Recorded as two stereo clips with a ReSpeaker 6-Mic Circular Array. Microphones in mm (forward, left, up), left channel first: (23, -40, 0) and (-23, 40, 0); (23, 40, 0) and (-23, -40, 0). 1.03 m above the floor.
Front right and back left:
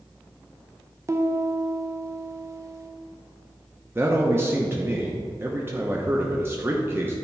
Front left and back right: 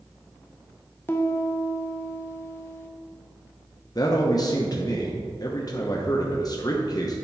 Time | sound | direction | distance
1.1 | a piano | 100° left | 0.5 m
4.0 | a man speaking | 65° left | 0.8 m